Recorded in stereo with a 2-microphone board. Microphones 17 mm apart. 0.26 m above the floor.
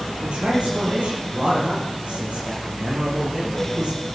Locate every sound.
0.2 s a man speaking: 80° right, 7 m; by 4.1 s 70° right (ahead or behind), 6.5 m